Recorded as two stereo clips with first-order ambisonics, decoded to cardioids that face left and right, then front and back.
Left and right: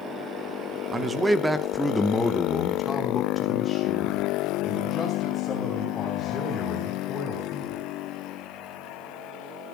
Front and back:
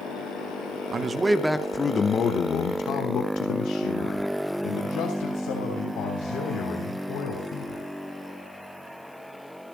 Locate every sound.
0.9 s a man speaking: 150° right, 0.8 m; by 7.8 s 25° left, 4 m